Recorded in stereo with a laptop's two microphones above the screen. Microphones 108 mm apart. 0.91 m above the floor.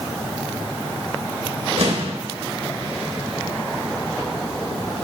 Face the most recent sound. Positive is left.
turn(degrees=-70)  # may be behind; listen again after turning